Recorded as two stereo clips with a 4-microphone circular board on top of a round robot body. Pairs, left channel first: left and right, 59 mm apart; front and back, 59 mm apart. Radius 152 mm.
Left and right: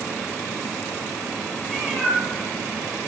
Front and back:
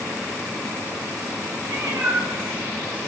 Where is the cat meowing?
150° left, 3 m.